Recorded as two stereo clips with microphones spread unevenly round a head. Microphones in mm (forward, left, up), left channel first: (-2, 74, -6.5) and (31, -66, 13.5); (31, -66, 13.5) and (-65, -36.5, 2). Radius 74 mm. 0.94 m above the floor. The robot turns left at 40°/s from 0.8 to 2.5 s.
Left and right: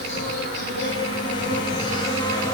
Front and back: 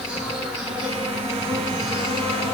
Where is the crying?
I don't hear crying.